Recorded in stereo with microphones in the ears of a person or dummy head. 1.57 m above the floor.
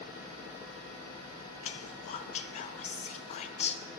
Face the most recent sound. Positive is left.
turn(degrees=40)  # may be behind; listen again after turning